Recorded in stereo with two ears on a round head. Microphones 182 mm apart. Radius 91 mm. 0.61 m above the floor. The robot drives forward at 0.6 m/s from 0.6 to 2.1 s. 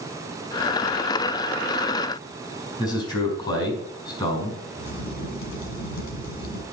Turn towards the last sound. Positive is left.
turn(degrees=55)  # may be behind; listen again after turning